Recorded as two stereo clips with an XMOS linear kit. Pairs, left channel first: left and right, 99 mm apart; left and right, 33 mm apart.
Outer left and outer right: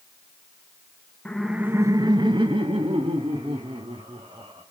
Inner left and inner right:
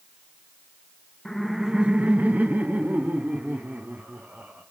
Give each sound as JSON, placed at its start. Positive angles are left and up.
{"t": 1.2, "sound": "laughter", "side_deg": 10, "distance_m": 0.9}